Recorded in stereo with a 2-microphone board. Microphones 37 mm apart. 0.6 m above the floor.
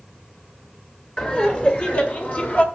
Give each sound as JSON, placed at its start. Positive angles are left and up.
{"t": 1.2, "sound": "laughter", "side_deg": 40, "distance_m": 2.5}